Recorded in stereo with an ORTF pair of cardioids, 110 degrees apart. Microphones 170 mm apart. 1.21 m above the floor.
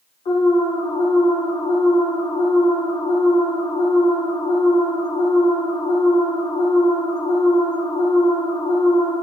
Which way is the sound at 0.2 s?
35° left.